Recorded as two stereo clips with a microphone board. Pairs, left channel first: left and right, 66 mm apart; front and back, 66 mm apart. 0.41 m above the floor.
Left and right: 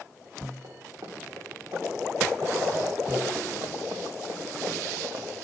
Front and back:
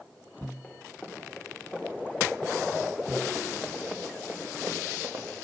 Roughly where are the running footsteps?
Right.